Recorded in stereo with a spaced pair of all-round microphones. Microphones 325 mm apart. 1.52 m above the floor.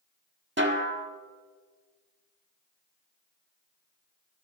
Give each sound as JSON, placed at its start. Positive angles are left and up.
{"t": 0.6, "sound": "a snare drum", "side_deg": -35, "distance_m": 1.3}